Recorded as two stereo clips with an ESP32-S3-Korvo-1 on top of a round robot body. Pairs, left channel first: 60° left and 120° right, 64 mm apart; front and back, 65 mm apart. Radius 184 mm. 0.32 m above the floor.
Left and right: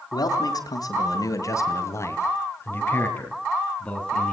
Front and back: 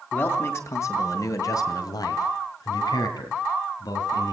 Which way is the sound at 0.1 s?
55° left.